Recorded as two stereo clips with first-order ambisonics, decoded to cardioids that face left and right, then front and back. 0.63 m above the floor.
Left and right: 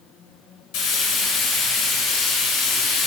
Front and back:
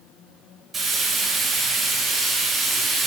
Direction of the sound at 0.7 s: 105° left.